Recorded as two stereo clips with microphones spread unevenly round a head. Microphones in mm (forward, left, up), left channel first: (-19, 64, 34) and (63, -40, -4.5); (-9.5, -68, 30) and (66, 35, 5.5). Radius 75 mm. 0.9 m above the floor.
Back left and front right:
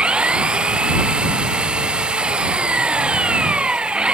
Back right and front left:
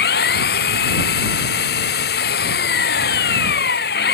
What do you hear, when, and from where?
0.0 s an engine running: 135° right